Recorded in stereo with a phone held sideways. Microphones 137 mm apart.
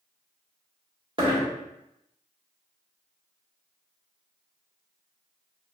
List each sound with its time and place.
1.2 s a dropped coin: 40° right (ahead or behind), 1.3 m